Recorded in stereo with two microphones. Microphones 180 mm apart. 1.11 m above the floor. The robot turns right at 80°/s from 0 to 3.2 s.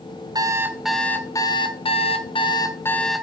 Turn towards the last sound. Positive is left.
turn(degrees=-175)